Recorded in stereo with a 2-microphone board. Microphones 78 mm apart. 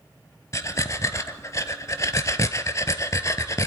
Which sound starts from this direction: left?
Breathing, at 0.5 s.